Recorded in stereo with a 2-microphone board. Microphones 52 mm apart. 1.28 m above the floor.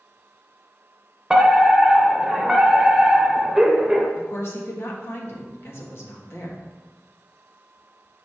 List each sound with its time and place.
1.3 s a fire alarm: 10° right (ahead or behind), 1.1 m
4.2 s a woman speaking: 55° left (ahead or behind), 1.4 m